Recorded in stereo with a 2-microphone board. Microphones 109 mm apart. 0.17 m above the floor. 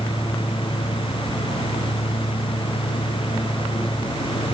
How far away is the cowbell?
I don't hear a cowbell.